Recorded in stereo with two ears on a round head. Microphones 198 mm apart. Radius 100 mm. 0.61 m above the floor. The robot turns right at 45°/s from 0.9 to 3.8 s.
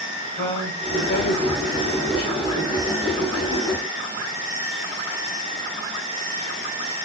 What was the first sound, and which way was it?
A woman speaking, 45° left.